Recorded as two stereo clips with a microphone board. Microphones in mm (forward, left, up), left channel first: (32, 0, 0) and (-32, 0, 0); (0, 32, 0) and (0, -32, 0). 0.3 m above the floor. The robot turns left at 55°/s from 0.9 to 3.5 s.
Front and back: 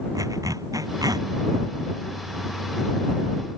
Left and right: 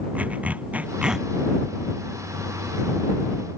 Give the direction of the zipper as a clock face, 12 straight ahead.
5 o'clock.